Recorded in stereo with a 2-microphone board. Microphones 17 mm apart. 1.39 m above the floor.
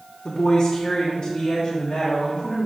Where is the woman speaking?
65° left (ahead or behind), 0.9 m; by 2.7 s 50° left (ahead or behind), 3 m.